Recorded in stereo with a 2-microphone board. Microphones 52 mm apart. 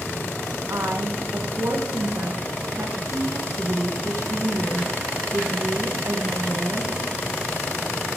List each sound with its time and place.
0.7 s a woman speaking: 70° right (ahead or behind), 1.4 m